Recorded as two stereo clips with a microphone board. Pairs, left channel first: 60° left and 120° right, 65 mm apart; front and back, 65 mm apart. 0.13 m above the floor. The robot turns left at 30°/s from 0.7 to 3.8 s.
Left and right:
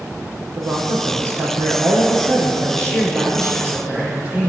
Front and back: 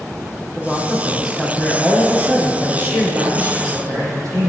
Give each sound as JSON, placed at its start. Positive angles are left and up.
{"t": 0.6, "sound": "a woman speaking", "azimuth_deg": -85, "distance_m": 4.5}